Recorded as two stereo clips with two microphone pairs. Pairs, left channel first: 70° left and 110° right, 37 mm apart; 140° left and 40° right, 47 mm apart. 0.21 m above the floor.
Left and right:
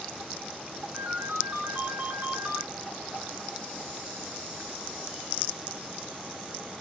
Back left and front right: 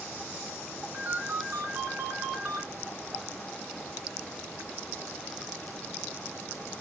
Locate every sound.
0.9 s a ringtone: 55° right, 1.5 m